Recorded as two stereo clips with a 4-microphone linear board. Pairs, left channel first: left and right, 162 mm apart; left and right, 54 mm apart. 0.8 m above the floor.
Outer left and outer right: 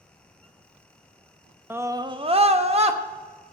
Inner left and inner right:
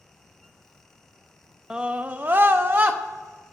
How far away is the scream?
About 0.7 m.